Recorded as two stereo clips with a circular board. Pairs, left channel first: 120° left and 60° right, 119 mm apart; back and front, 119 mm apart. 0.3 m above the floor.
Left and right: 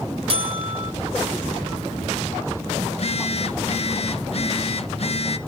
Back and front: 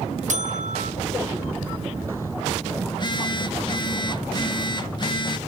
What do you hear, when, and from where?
0.3 s a buzzer: 15° right, 0.7 m
2.9 s a phone buzzing: 135° left, 0.5 m